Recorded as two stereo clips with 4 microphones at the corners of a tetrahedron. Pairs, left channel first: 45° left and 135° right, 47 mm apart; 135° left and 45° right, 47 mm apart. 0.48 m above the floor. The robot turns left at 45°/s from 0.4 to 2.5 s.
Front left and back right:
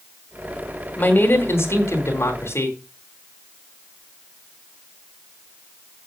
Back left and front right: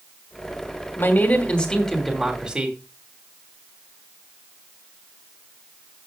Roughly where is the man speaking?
Left.